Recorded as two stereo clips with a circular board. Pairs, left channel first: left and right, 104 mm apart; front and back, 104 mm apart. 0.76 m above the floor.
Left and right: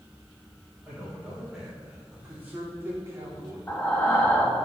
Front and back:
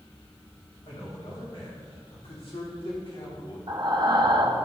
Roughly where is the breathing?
Behind left.